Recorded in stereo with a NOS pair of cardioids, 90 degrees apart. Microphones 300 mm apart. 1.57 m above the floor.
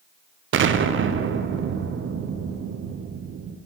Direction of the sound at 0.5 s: 40° right.